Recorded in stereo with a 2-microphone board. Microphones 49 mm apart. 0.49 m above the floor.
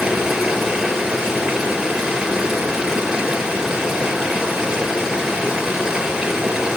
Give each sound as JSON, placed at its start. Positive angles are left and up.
{"t": 0.0, "sound": "running water", "side_deg": -10, "distance_m": 6.0}